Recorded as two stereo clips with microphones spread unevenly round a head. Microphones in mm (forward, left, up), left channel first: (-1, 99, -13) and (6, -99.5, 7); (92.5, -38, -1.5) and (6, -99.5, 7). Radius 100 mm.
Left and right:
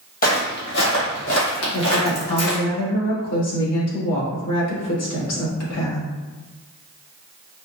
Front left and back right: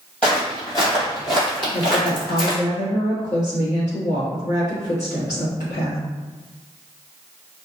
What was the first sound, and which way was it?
Footsteps, 120° left.